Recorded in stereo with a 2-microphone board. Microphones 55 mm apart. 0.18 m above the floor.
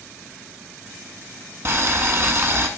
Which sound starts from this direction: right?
Boiling, at 1.6 s.